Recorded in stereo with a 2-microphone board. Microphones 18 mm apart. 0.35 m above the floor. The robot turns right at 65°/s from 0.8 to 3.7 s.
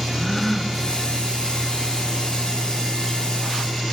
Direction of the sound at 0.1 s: 10° left (ahead or behind).